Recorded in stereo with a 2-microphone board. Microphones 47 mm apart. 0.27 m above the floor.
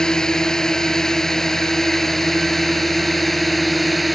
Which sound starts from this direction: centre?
A drone, at 0.0 s.